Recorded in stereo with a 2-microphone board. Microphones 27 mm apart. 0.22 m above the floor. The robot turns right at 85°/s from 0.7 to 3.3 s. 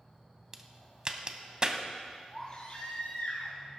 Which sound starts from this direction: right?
A crack, at 0.5 s.